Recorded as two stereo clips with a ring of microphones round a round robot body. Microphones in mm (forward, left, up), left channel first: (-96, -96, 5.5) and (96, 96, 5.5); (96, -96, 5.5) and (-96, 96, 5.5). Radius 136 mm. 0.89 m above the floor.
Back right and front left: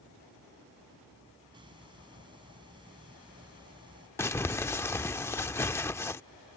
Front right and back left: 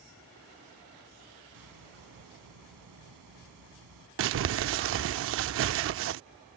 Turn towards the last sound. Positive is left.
turn(degrees=150)